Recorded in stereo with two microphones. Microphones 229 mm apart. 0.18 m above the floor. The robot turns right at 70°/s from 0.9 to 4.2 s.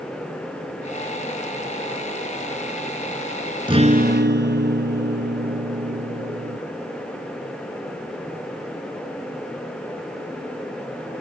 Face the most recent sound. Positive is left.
turn(degrees=-120)